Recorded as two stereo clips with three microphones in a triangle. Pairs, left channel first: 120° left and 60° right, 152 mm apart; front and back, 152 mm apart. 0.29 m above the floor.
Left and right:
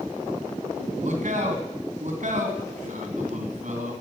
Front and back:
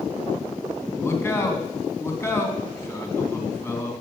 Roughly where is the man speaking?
Right.